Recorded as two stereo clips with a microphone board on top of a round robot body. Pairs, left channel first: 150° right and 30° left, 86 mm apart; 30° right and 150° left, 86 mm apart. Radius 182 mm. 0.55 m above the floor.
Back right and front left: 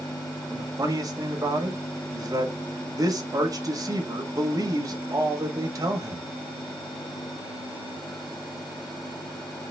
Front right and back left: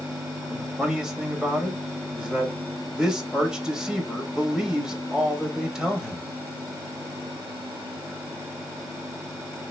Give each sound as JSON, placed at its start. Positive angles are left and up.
{"t": 0.5, "sound": "a man speaking", "azimuth_deg": 70, "distance_m": 1.2}